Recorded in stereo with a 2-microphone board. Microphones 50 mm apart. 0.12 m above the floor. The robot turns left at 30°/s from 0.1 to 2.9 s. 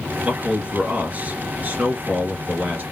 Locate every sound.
0.2 s a man speaking: 35° right, 2.0 m; by 2.8 s 110° right, 2.0 m